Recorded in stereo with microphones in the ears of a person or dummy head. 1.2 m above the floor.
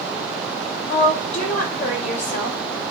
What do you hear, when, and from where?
0.9 s a woman speaking: 40° left (ahead or behind), 4.5 m